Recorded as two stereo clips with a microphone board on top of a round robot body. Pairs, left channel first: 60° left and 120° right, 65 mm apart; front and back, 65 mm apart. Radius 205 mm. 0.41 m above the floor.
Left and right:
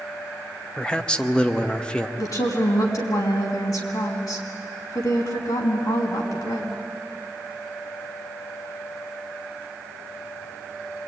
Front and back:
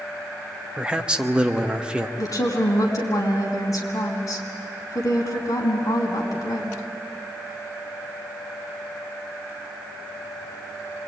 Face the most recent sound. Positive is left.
turn(degrees=35)